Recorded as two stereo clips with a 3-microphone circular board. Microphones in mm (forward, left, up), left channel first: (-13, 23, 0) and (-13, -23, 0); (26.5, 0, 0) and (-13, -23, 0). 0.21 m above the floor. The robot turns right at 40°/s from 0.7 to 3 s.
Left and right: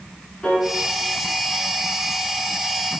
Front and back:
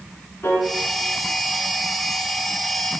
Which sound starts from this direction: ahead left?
A piano, at 0.4 s.